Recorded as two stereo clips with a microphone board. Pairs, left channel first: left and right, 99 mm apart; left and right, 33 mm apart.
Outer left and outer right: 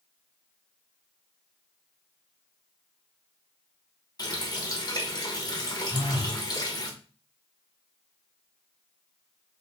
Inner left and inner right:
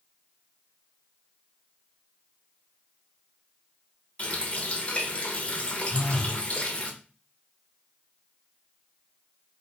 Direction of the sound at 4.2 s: 40° left (ahead or behind).